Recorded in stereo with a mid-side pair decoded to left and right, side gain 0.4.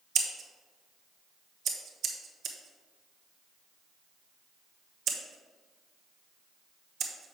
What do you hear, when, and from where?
0.1 s scissors: 70° right, 1.0 m